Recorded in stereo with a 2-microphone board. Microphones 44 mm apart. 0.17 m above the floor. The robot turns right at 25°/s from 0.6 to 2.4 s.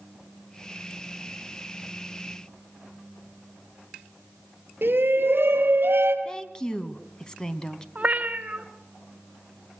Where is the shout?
55° right (ahead or behind), 3 m.